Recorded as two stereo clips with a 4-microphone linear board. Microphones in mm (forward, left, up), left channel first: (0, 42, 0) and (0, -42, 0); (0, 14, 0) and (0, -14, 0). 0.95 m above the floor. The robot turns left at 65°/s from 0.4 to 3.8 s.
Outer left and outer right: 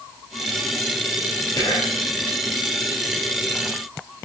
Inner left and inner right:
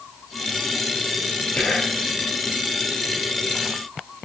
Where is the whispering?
135° left, 5 m; by 2.0 s 100° left, 5 m.